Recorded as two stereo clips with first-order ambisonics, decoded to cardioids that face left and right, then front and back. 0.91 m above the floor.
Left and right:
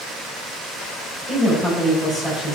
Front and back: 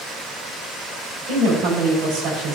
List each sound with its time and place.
1.3 s a woman speaking: 165° right, 3.5 m